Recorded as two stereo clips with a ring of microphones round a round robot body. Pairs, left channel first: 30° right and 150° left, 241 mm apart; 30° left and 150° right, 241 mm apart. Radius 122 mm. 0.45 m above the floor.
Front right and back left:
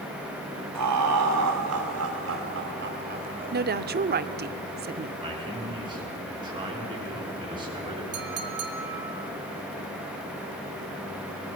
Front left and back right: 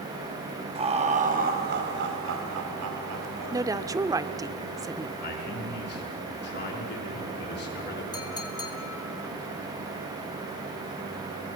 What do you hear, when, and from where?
0.8 s laughter: 145° left, 3.5 m; by 3.6 s 150° right, 3 m
3.5 s a woman speaking: 140° left, 0.9 m
5.2 s a man speaking: 80° left, 6 m
8.1 s a clink: 105° left, 2.5 m